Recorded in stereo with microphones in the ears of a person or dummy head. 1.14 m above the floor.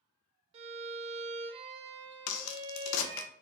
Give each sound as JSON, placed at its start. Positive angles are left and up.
{"t": 0.5, "sound": "a violin", "side_deg": -35, "distance_m": 0.6}
{"t": 2.3, "sound": "a crack", "side_deg": 80, "distance_m": 0.6}